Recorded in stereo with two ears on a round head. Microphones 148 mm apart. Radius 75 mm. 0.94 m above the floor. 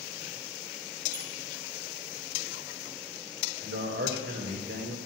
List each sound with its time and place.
1.1 s a squeak: 55° right (ahead or behind), 4 m
3.6 s a man speaking: 60° right (ahead or behind), 3 m